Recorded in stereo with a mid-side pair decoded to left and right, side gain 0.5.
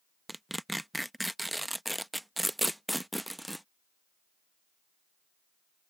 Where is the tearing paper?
5° right.